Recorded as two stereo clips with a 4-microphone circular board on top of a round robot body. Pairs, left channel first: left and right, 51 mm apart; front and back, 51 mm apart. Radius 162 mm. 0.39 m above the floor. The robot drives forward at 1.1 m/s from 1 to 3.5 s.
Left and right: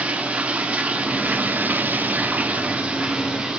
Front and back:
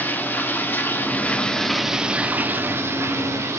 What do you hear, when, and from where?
0.0 s running water: 35° right, 1.5 m; by 3.6 s 160° right, 2 m